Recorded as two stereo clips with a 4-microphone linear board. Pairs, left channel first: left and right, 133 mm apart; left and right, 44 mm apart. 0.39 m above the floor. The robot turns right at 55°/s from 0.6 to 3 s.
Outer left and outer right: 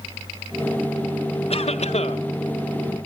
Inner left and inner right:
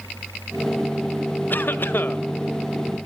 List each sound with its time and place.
1.5 s a cough: 70° left, 1.4 m; by 2.2 s 110° left, 1.4 m